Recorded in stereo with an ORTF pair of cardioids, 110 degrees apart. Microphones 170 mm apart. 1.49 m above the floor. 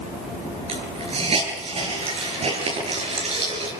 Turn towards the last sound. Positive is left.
turn(degrees=-35)